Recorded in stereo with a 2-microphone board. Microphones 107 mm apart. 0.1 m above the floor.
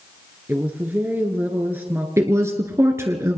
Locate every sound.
0.5 s a woman speaking: 20° right (ahead or behind), 1.4 m
2.2 s a woman speaking: 25° right (ahead or behind), 1.3 m